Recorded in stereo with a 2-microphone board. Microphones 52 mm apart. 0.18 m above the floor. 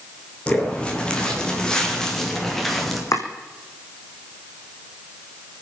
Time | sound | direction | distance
0.5 | footsteps | 20° left (ahead or behind) | 4.5 m
3.1 | chopping | 80° left | 2.5 m